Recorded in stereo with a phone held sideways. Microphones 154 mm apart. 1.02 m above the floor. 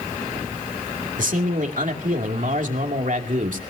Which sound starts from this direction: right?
A man speaking, at 1.2 s.